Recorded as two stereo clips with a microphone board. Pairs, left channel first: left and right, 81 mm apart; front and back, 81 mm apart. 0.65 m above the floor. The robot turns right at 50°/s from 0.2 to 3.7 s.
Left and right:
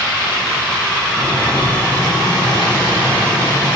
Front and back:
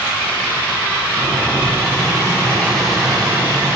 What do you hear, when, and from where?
1.2 s boiling: 5° right, 3.5 m; by 3.8 s 125° left, 3.5 m